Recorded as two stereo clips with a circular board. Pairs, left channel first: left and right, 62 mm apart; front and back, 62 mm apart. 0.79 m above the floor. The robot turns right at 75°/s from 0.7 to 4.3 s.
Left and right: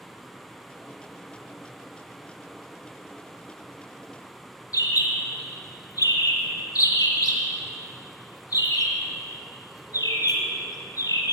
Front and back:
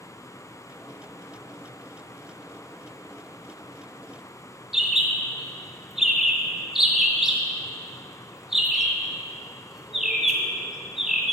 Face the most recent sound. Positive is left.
turn(degrees=95)